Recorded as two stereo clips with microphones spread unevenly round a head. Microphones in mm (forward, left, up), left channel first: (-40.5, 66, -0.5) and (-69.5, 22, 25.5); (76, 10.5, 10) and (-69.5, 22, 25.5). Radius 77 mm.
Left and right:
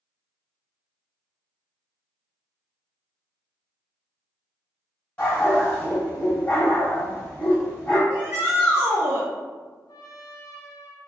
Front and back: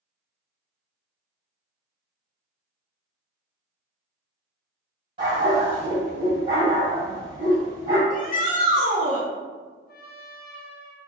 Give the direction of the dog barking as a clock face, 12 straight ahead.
8 o'clock.